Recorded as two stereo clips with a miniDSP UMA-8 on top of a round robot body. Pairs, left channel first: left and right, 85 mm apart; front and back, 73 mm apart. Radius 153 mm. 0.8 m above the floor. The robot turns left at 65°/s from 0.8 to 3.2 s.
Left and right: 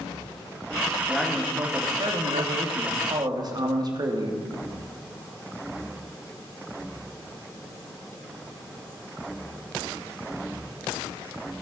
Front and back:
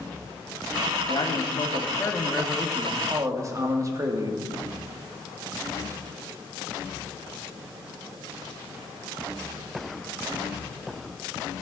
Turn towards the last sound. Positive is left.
turn(degrees=-130)